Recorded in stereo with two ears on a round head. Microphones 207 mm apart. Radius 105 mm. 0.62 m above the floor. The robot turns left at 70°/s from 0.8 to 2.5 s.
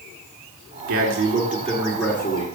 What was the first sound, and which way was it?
A man speaking, 100° right.